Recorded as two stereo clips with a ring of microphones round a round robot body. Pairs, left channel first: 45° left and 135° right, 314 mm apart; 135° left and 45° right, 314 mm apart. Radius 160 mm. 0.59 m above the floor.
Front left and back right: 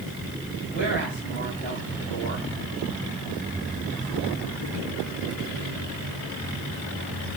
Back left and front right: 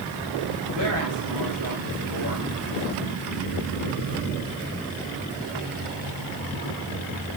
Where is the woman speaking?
20° right, 4 m.